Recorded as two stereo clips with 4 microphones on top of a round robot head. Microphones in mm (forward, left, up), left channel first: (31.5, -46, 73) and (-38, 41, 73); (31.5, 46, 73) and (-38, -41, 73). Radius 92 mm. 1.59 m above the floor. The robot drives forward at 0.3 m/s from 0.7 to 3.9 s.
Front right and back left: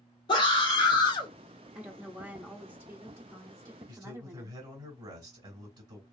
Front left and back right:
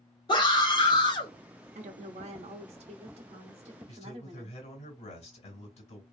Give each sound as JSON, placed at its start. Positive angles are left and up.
{"t": 0.3, "sound": "a scream", "azimuth_deg": 0, "distance_m": 0.9}
{"t": 1.8, "sound": "a woman speaking", "azimuth_deg": -150, "distance_m": 0.6}
{"t": 3.9, "sound": "a man speaking", "azimuth_deg": 75, "distance_m": 1.9}